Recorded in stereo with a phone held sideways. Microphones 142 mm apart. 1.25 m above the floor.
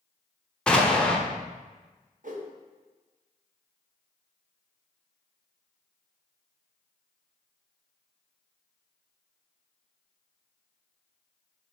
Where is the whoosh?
60° right (ahead or behind), 0.7 m.